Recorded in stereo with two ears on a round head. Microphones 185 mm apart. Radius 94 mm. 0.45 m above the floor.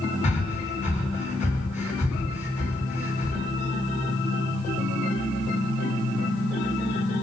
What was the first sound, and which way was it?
Breathing, 35° left (ahead or behind).